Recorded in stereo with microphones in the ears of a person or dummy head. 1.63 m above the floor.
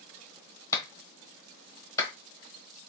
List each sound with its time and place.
0.7 s a clap: 25° left (ahead or behind), 1.1 m